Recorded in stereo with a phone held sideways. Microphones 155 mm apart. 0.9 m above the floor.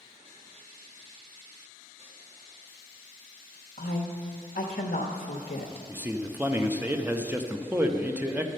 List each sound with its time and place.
3.8 s a woman speaking: 60° left (ahead or behind), 0.8 m
5.9 s a man speaking: 10° right (ahead or behind), 0.6 m